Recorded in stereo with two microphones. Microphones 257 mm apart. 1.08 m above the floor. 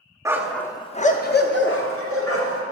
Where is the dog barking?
10° right (ahead or behind), 0.5 m; by 2.6 s 60° left (ahead or behind), 1.2 m.